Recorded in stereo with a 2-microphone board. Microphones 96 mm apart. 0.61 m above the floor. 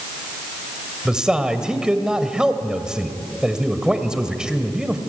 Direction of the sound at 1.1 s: 5° right (ahead or behind).